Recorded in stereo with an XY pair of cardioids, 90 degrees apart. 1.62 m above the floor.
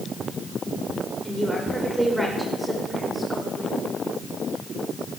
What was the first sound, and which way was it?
A woman speaking, 10° right.